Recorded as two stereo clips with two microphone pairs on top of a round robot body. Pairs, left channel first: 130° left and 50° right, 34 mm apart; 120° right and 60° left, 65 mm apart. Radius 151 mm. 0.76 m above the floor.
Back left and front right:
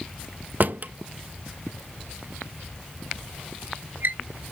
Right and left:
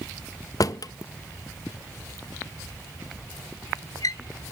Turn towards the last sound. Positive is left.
turn(degrees=-85)